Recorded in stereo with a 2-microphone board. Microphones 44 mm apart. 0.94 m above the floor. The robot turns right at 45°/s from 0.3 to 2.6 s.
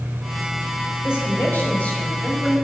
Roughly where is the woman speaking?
Left.